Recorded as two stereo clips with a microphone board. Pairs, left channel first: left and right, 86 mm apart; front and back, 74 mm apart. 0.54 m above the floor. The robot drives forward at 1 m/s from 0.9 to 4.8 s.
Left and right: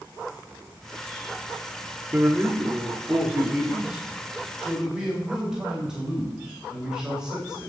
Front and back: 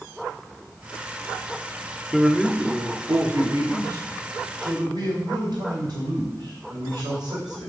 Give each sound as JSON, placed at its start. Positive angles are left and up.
{"t": 2.1, "sound": "a man speaking", "azimuth_deg": -85, "distance_m": 1.1}